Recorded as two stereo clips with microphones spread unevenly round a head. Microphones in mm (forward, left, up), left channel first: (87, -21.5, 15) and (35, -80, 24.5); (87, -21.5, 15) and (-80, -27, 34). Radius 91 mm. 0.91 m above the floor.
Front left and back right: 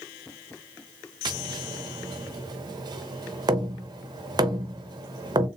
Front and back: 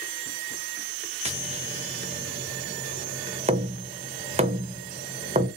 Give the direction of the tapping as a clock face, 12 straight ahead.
4 o'clock.